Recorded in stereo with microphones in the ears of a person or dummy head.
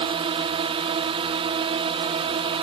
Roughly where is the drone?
Right.